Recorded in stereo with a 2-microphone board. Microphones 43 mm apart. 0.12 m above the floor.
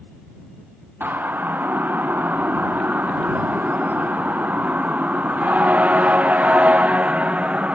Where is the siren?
50° right (ahead or behind); by 7.8 s 30° right (ahead or behind).